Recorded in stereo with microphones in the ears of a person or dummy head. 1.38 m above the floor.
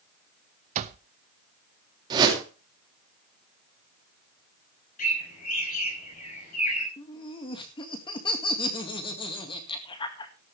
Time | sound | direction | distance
0.8 | an alarm clock | 45° right (ahead or behind) | 0.8 m
2.1 | a whoosh | 25° right (ahead or behind) | 3 m
5.0 | a bird | 55° left (ahead or behind) | 5 m
7.0 | laughter | 30° left (ahead or behind) | 2 m